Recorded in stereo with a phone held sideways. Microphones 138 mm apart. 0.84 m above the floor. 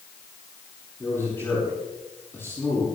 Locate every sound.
1.0 s a man speaking: 15° left (ahead or behind), 8 m